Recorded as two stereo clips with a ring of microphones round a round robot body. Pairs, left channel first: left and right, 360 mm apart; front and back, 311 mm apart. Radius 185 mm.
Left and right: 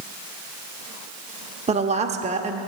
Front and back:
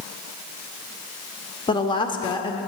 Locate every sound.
1.7 s a woman speaking: 50° right, 0.8 m